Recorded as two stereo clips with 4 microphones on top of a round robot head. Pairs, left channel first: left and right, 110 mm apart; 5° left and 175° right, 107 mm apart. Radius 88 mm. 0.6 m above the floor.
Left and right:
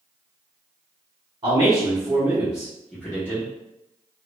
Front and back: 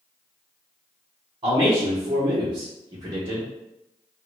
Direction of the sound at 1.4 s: 135° right.